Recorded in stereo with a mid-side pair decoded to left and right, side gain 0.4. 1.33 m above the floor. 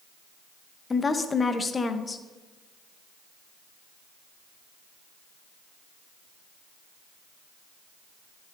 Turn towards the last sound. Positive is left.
turn(degrees=35)